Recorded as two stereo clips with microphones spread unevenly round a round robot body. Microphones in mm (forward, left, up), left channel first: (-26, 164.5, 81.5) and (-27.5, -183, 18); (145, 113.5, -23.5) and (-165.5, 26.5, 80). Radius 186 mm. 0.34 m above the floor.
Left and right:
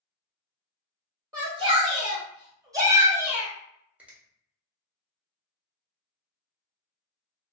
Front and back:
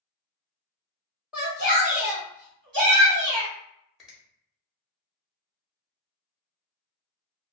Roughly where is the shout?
Ahead right.